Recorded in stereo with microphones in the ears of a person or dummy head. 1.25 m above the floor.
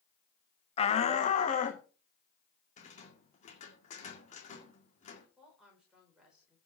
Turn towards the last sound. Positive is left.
turn(degrees=5)  # may be behind; listen again after turning